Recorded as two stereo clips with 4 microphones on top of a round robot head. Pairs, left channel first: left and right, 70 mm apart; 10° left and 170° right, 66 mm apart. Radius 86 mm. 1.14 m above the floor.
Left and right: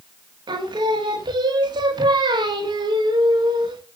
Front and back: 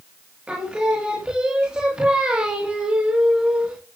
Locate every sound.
0.5 s singing: 90° right, 1.5 m